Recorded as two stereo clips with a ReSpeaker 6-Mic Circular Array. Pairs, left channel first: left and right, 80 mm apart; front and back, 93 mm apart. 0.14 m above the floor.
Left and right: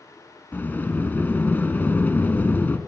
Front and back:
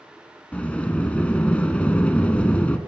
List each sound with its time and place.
0.5 s a sliding door: 60° left, 1.1 m